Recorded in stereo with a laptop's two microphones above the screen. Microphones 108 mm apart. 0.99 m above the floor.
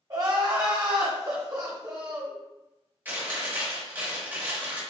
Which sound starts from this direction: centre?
Chewing, at 3.0 s.